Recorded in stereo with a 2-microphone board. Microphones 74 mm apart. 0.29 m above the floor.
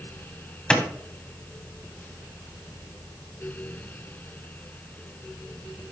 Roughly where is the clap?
Centre.